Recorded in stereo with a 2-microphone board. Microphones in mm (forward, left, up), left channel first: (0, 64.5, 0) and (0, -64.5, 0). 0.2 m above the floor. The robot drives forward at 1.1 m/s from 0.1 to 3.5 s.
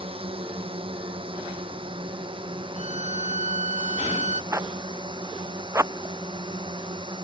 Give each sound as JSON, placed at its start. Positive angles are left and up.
{"t": 0.0, "sound": "a drone", "side_deg": -45}
{"t": 2.8, "sound": "a violin", "side_deg": -55}
{"t": 4.5, "sound": "a zipper", "side_deg": -20}